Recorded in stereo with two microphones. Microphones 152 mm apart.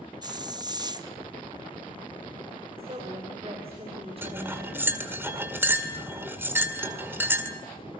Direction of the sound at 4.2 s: 15° right (ahead or behind).